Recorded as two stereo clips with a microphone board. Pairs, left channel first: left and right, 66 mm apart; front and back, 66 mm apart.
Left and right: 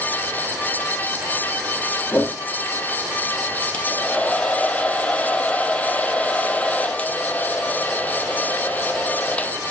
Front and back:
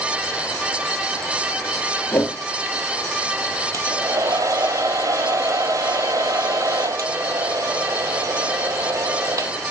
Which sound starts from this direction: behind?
A hair dryer, at 3.7 s.